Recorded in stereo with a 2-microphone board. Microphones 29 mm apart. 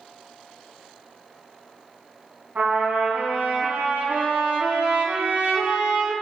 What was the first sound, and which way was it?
A trumpet, 80° right.